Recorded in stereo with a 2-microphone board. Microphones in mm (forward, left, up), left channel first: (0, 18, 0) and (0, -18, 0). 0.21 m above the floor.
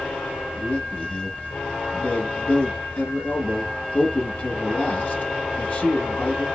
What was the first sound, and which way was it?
A man speaking, 45° left (ahead or behind).